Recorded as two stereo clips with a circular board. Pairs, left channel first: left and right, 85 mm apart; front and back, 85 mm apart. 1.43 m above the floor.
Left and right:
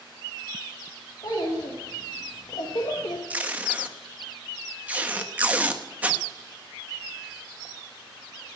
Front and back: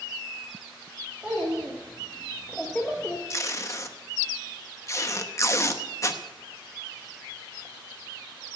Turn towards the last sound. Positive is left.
turn(degrees=-25)